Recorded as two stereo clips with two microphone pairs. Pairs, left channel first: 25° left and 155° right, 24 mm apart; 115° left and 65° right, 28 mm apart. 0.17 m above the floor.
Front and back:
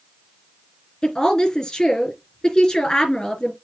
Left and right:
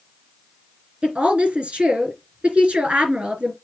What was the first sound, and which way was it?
A woman speaking, 30° right.